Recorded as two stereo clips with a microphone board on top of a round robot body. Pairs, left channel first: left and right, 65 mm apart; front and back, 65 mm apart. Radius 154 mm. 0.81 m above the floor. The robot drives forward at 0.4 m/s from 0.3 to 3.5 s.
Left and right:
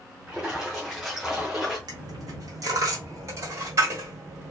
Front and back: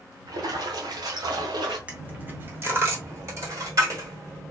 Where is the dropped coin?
110° right, 0.8 m; by 4.5 s 140° right, 1.2 m.